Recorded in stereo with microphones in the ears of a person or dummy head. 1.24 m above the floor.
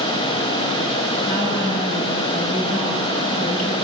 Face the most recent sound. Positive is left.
turn(degrees=40)  # may be behind; listen again after turning